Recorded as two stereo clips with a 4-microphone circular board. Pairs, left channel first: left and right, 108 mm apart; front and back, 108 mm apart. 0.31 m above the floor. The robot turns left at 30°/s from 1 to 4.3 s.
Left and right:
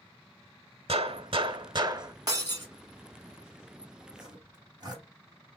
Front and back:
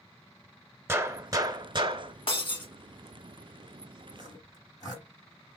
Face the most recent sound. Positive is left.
turn(degrees=-45)